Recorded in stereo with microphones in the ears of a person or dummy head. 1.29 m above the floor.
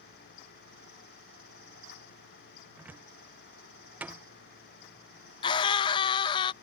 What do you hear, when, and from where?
2.8 s a cupboard door: 10° right (ahead or behind)
5.4 s a scream: 30° left (ahead or behind)